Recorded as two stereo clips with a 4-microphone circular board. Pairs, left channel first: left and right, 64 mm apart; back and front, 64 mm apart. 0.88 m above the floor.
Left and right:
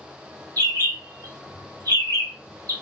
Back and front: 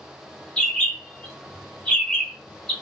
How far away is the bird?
About 0.9 m.